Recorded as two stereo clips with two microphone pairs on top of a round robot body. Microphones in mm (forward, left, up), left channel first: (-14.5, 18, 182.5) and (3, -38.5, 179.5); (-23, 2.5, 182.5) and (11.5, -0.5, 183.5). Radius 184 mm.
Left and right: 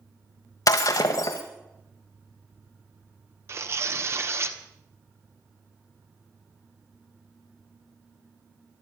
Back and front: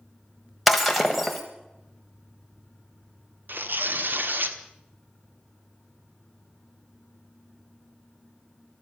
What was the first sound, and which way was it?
Breaking glass, 85° left.